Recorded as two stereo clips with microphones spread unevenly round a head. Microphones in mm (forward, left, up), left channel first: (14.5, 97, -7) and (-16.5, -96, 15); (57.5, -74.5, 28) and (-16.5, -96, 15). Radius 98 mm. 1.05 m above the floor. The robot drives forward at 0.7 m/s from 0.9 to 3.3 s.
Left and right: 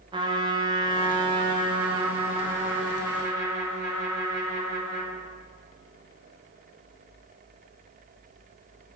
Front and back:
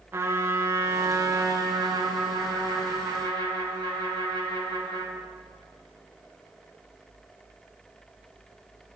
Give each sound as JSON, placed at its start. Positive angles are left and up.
{"t": 0.1, "sound": "a trumpet", "azimuth_deg": -165, "distance_m": 0.9}